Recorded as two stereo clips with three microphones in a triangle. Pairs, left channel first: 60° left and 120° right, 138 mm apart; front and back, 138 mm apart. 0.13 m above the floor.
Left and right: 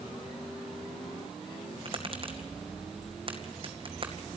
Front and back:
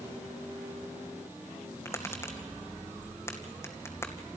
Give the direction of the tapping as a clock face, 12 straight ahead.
2 o'clock.